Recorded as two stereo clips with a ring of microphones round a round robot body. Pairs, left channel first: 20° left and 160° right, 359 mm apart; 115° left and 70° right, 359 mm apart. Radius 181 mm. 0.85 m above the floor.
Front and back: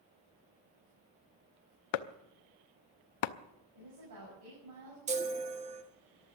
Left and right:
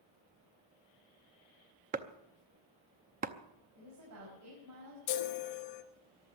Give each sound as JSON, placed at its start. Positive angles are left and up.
{"t": 1.9, "sound": "chopping", "azimuth_deg": 0, "distance_m": 0.7}
{"t": 3.8, "sound": "a woman speaking", "azimuth_deg": -115, "distance_m": 6.0}
{"t": 5.1, "sound": "a chime", "azimuth_deg": 130, "distance_m": 1.3}